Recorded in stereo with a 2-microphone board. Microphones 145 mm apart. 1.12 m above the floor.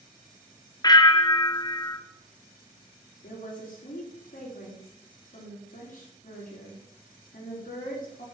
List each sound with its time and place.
0.8 s a bell: 30° left (ahead or behind), 0.6 m
3.2 s a woman speaking: 70° left (ahead or behind), 3.5 m